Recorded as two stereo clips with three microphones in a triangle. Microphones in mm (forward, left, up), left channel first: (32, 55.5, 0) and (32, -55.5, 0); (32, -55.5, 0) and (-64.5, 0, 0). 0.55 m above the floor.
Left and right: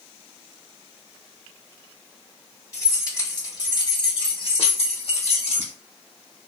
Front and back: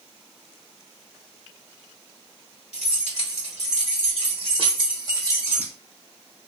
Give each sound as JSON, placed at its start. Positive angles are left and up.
{"t": 2.7, "sound": "keys jangling", "azimuth_deg": 150, "distance_m": 1.7}